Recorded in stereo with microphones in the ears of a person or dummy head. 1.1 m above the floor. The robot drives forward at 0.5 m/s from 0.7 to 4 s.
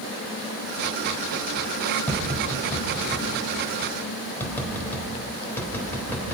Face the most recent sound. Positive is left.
turn(degrees=15)  # may be behind; listen again after turning